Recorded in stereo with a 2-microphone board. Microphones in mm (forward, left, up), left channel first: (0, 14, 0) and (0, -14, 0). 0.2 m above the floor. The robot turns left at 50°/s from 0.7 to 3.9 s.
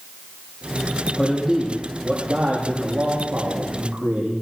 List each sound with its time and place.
1.2 s a man speaking: 15° left, 6.5 m; by 4.4 s 120° right, 6.5 m